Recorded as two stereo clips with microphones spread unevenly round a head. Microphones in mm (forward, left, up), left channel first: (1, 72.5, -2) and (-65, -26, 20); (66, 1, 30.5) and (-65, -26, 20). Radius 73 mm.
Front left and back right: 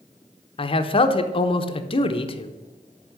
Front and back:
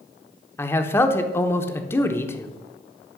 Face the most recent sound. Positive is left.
turn(degrees=85)